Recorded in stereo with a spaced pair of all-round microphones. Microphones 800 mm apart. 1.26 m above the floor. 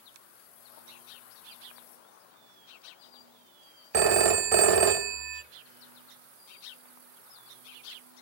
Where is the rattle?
No rattle in this recording.